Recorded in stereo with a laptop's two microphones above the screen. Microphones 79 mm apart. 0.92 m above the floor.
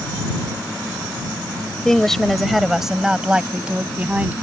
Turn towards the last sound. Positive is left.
turn(degrees=-20)  # may be behind; listen again after turning